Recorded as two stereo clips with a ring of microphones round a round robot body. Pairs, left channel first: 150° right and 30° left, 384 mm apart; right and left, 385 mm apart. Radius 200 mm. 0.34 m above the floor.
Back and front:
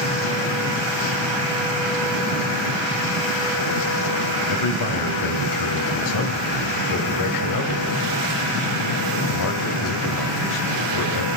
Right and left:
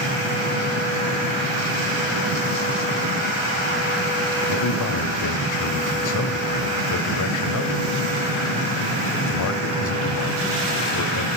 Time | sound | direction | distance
4.5 | a man speaking | 125° right | 2.0 m